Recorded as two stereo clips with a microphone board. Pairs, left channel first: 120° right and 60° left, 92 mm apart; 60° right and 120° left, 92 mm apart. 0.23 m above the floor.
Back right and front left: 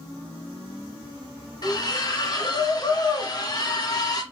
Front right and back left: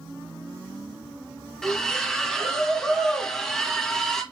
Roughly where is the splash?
Behind right.